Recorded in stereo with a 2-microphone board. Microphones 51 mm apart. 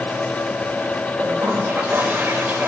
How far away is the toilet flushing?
About 4 m.